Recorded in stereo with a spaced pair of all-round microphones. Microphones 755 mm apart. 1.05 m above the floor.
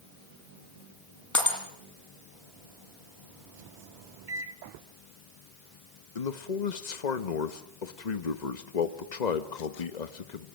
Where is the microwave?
75° right (ahead or behind), 1.2 m.